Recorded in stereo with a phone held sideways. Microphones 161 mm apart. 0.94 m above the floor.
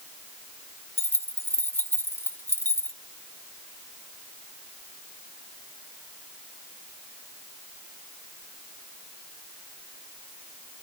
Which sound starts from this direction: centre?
Keys jangling, at 1.0 s.